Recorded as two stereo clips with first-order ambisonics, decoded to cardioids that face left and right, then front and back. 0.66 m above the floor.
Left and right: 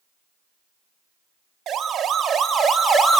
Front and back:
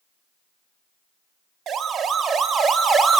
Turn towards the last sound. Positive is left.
turn(degrees=165)